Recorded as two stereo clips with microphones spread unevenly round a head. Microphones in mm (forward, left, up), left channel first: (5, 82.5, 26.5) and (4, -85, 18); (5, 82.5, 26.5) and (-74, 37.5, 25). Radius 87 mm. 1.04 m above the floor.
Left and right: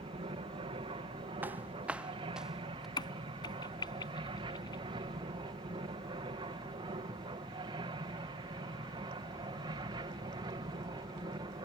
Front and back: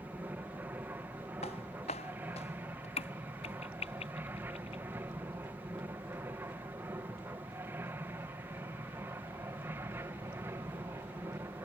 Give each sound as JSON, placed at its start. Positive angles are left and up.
{"t": 0.0, "sound": "an aircraft", "azimuth_deg": -95}
{"t": 1.4, "sound": "footsteps", "azimuth_deg": -10}
{"t": 3.0, "sound": "a crack", "azimuth_deg": 25}